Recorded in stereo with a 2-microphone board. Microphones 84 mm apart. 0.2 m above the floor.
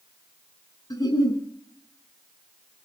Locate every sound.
0.9 s a giggle: 50° left (ahead or behind), 2.5 m